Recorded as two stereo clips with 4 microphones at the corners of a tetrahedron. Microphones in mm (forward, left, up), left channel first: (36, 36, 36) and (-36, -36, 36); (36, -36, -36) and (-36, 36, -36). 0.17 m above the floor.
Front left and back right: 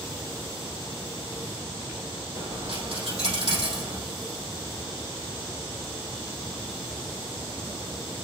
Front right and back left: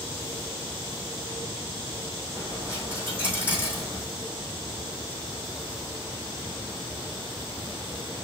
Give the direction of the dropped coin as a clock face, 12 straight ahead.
5 o'clock.